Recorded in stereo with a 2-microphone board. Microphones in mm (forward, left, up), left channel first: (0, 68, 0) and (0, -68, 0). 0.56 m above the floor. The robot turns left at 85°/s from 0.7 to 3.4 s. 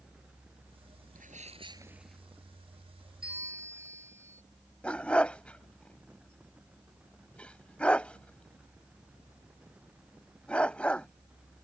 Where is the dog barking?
10° left (ahead or behind).